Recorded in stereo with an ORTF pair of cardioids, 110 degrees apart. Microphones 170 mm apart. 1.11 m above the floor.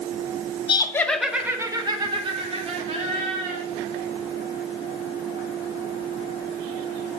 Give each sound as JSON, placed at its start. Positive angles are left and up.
{"t": 0.7, "sound": "laughter", "azimuth_deg": 30, "distance_m": 0.9}